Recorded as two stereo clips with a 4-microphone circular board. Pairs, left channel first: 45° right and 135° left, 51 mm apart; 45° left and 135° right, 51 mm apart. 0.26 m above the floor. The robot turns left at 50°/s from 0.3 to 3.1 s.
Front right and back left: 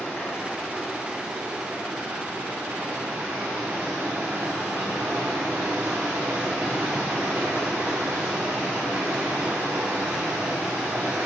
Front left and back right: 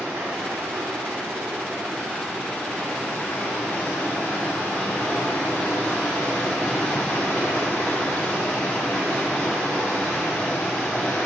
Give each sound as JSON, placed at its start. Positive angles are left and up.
{"t": 0.0, "sound": "running water", "azimuth_deg": -110, "distance_m": 3.0}